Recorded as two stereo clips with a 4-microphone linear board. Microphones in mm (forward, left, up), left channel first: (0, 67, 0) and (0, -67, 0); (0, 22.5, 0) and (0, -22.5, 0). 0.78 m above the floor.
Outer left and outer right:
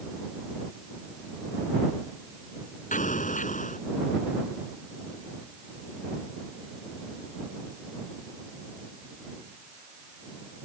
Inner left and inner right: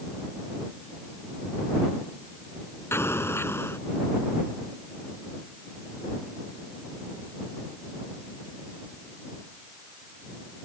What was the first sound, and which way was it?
An explosion, 80° left.